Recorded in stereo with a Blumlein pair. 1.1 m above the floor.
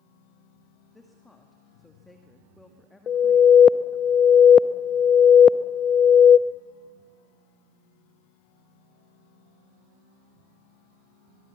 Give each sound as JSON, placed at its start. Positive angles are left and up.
{"t": 0.9, "sound": "a woman speaking", "azimuth_deg": 5, "distance_m": 1.8}
{"t": 3.1, "sound": "an alarm", "azimuth_deg": 25, "distance_m": 0.7}